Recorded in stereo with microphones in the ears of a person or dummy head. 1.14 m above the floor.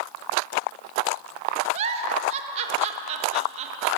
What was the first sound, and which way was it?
A giggle, 30° right (ahead or behind).